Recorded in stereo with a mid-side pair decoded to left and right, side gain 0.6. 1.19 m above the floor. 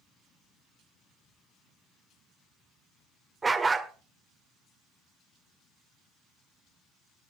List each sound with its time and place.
3.4 s a dog barking: 20° right, 1.8 m